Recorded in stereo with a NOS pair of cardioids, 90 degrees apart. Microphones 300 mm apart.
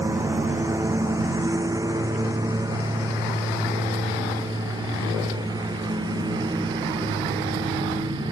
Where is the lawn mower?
10° right; by 8.3 s 15° right.